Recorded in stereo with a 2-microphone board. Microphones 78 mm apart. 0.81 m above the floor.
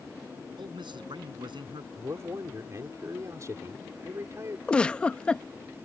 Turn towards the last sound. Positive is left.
turn(degrees=15)  # may be behind; listen again after turning